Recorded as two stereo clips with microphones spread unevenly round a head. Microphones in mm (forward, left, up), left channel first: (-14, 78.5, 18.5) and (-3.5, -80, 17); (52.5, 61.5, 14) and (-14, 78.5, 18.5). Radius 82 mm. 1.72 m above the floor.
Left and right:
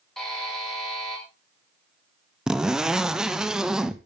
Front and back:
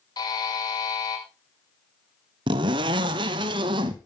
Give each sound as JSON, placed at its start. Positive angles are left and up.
{"t": 0.2, "sound": "a buzzer", "azimuth_deg": 5, "distance_m": 6.0}
{"t": 2.5, "sound": "a zipper", "azimuth_deg": -170, "distance_m": 1.1}